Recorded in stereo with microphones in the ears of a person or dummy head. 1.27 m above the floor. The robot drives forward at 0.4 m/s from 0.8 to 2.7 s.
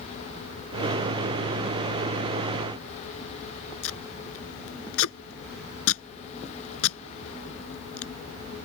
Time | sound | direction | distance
3.8 | tape being pulled | 85° left | ?